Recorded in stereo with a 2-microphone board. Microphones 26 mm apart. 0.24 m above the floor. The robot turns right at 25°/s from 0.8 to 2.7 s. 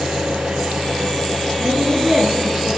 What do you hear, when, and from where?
0.0 s an engine running: 70° right, 4 m; by 2.8 s 20° right, 4 m
1.6 s a woman speaking: 50° right (ahead or behind), 3.5 m; by 2.7 s 25° right (ahead or behind), 3.5 m